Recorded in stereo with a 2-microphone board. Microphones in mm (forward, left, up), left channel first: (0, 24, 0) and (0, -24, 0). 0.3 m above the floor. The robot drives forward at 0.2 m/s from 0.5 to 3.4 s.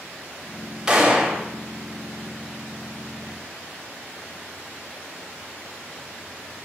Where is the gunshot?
15° right (ahead or behind), 0.6 m.